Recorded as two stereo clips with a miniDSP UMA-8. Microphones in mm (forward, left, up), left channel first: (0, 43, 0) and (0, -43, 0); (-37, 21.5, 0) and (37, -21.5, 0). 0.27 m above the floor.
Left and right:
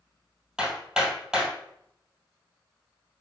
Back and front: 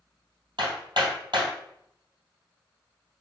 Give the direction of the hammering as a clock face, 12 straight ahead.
12 o'clock.